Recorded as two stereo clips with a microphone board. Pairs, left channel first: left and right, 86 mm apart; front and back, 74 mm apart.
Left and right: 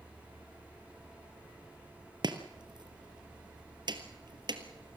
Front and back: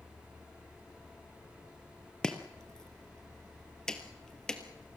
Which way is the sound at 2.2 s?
80° right.